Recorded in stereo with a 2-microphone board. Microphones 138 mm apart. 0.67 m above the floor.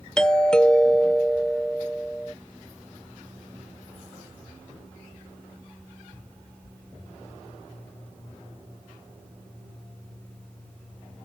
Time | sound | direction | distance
0.2 | a doorbell | 5° left (ahead or behind) | ?